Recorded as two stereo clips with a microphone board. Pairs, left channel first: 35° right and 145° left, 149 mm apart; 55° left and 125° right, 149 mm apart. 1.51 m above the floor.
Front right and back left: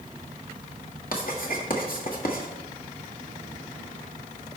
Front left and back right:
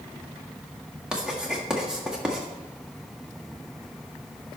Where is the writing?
40° right, 1.8 m.